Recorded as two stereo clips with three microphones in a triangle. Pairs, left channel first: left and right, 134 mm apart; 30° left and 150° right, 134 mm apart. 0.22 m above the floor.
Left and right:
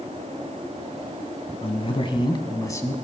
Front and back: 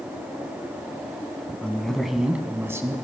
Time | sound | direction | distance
1.6 | a man speaking | 105° left | 1.6 m